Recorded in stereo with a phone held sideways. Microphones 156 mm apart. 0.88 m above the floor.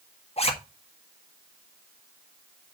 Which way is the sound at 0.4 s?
40° left (ahead or behind).